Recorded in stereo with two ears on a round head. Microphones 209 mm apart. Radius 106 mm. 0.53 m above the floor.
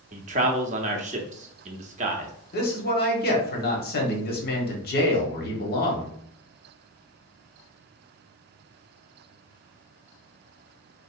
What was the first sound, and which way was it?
A man speaking, 30° right (ahead or behind).